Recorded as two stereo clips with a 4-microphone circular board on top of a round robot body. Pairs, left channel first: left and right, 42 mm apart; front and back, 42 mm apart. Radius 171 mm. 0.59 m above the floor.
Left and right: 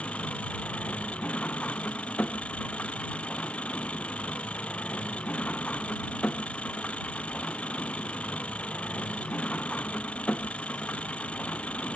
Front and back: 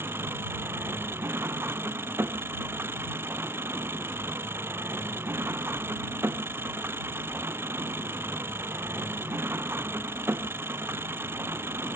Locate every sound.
0.0 s an engine running: 155° left